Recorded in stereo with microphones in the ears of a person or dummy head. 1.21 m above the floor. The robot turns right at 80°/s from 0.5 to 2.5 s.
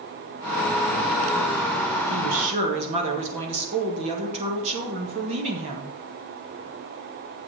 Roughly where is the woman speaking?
Right.